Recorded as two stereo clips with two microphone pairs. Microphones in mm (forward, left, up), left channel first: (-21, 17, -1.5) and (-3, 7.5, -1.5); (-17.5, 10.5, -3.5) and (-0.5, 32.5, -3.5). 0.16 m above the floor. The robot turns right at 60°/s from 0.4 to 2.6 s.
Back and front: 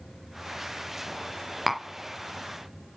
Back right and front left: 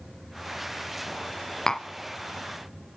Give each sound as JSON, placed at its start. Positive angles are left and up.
{"t": 1.7, "sound": "tapping", "azimuth_deg": -100, "distance_m": 0.7}